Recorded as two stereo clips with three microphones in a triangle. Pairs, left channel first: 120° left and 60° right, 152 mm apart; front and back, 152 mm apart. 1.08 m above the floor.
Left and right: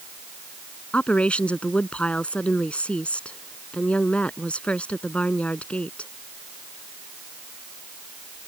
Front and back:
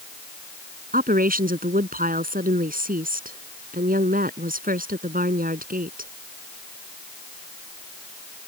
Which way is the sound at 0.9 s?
155° right.